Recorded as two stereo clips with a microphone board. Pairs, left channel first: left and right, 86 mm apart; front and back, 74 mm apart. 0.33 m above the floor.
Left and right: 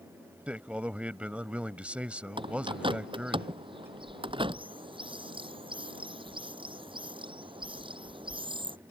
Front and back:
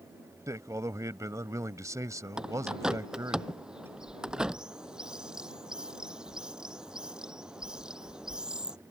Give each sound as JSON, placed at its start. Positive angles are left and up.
{"t": 0.5, "sound": "a man speaking", "azimuth_deg": -160}
{"t": 2.4, "sound": "a bird", "azimuth_deg": -100}